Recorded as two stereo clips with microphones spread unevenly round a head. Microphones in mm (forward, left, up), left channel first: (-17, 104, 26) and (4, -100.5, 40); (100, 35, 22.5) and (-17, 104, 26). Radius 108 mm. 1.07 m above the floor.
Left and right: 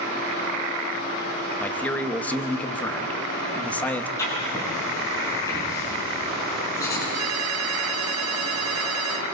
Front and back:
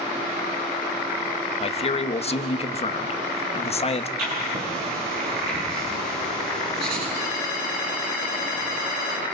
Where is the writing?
170° left, 8.5 m.